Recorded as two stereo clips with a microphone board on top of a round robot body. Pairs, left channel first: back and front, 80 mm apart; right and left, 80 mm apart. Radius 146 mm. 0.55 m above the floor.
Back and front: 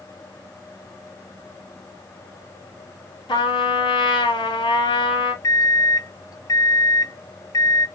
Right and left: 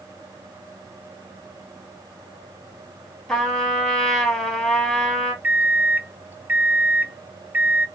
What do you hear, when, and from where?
3.3 s a trumpet: 175° right, 2.5 m
5.4 s a microwave: 155° left, 0.7 m